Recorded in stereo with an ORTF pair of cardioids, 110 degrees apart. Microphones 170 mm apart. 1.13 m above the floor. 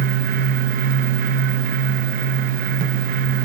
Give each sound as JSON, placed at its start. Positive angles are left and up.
{"t": 0.0, "sound": "a fan", "azimuth_deg": -55, "distance_m": 0.7}